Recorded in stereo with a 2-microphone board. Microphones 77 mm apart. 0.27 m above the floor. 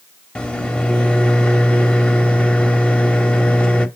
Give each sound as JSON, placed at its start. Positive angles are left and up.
{"t": 0.3, "sound": "a microwave", "side_deg": 15, "distance_m": 0.7}